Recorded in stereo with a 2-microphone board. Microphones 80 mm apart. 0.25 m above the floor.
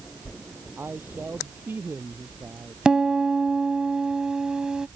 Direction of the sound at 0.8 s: 25° right (ahead or behind).